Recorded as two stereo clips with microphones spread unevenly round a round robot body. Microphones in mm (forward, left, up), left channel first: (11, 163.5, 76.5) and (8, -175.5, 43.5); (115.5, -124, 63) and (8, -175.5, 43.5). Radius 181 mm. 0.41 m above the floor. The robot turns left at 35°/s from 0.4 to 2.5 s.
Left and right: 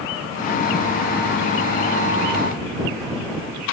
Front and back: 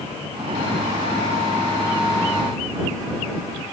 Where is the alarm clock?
No alarm clock in this recording.